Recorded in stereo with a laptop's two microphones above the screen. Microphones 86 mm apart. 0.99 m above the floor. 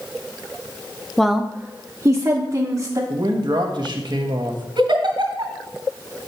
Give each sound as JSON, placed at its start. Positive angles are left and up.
{"t": 1.2, "sound": "a woman speaking", "side_deg": 5, "distance_m": 0.5}
{"t": 3.1, "sound": "a man speaking", "side_deg": -60, "distance_m": 1.1}
{"t": 4.8, "sound": "a giggle", "side_deg": -70, "distance_m": 2.0}